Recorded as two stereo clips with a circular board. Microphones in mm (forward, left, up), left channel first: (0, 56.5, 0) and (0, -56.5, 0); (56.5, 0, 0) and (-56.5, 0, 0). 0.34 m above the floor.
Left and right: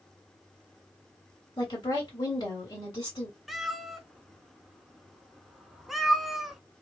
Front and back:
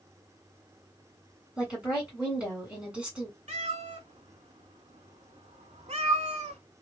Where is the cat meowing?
Straight behind, 0.6 m.